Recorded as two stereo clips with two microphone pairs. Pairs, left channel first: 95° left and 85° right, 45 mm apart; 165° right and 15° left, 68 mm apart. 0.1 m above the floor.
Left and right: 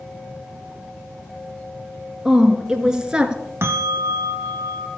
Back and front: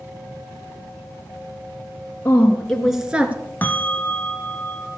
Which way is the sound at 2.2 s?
160° right.